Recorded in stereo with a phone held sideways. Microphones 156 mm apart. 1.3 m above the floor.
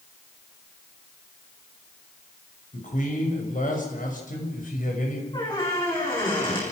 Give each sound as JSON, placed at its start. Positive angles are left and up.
{"t": 2.7, "sound": "a man speaking", "side_deg": 60, "distance_m": 6.0}
{"t": 5.3, "sound": "a squeak", "side_deg": 30, "distance_m": 8.5}